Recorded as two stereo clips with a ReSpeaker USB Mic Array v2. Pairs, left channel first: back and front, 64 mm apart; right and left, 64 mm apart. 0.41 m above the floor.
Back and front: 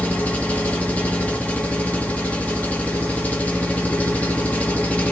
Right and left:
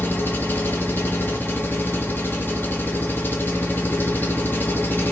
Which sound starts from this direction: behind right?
An engine running, at 0.0 s.